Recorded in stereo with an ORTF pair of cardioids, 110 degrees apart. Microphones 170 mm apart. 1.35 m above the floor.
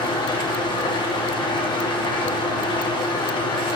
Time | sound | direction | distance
0.0 | an engine running | 30° left | 1.1 m